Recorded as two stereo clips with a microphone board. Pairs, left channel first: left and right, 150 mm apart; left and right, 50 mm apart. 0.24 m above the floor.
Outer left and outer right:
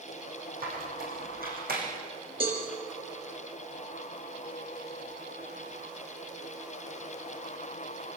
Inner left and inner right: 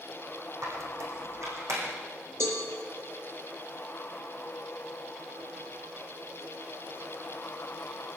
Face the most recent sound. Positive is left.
turn(degrees=-70)  # may be behind; listen again after turning